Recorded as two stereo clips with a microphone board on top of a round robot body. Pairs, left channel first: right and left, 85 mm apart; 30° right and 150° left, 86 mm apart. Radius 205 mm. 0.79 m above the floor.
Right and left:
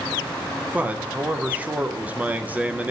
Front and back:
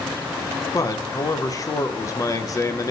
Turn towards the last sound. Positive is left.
turn(degrees=20)